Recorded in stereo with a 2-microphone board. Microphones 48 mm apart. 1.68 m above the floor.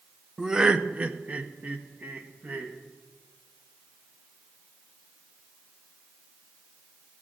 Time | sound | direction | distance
0.4 | laughter | 5° right (ahead or behind) | 0.5 m